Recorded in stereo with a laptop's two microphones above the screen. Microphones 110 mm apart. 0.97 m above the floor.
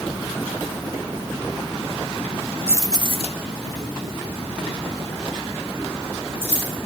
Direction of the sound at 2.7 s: 20° right (ahead or behind).